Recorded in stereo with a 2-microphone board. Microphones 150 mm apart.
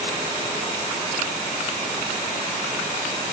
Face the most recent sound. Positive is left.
No sound to turn to.